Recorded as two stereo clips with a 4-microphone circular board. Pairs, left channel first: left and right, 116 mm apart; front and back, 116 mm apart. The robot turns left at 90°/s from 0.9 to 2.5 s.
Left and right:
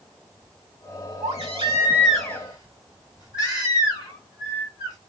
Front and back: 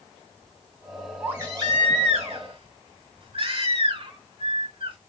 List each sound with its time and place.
1.2 s a baby crying: 100° right, 2.5 m; by 5.0 s 145° left, 2.5 m